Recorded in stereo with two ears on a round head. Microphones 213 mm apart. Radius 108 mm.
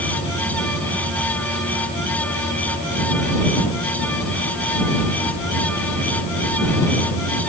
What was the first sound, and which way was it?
Only background noise.